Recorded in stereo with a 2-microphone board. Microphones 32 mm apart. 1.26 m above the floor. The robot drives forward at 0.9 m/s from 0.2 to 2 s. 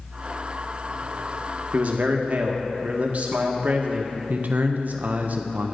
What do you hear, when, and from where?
1.7 s a man speaking: 55° right (ahead or behind), 1.2 m; by 4.1 s 50° right (ahead or behind), 1.3 m
4.3 s a man speaking: 60° right (ahead or behind), 0.6 m